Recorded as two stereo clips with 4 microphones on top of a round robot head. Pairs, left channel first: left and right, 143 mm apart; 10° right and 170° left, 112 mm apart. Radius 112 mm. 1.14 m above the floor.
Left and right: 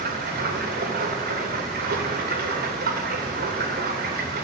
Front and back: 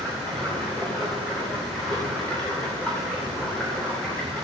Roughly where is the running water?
Right.